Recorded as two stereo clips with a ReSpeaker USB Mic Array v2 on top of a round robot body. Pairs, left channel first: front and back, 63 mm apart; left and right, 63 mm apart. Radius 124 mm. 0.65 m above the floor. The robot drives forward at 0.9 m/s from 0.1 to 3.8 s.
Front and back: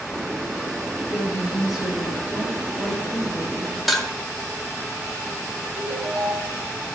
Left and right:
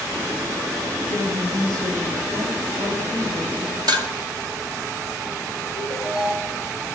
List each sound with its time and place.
1.1 s a woman speaking: 95° right, 9 m; by 3.8 s 110° right, 9.5 m
3.9 s dishes clattering: 90° right, 1.5 m
5.8 s a ringtone: 165° right, 4.5 m